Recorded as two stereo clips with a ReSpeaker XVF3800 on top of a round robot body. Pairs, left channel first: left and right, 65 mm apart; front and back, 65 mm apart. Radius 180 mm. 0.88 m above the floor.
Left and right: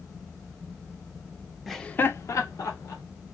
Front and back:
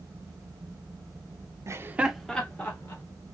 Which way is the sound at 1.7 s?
Straight behind.